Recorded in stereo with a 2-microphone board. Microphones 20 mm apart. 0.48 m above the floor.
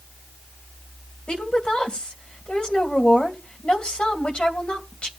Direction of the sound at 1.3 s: 70° left (ahead or behind).